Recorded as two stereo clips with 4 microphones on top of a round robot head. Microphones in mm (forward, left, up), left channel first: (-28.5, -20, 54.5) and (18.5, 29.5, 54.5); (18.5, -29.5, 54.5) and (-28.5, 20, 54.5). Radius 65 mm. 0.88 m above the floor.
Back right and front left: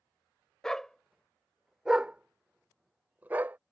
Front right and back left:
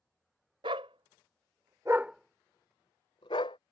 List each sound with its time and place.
0.6 s a dog barking: 145° left; by 3.6 s 25° right